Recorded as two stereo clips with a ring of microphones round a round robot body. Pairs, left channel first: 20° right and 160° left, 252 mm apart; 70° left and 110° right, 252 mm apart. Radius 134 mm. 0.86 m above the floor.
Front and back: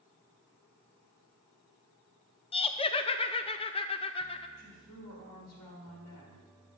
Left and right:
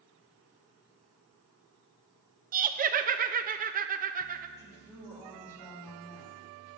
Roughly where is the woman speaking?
Ahead.